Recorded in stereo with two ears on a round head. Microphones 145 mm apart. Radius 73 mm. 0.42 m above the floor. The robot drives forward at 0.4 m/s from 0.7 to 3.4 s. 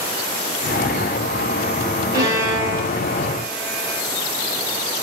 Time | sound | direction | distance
2.1 | a violin | 25° right (ahead or behind) | 1.4 m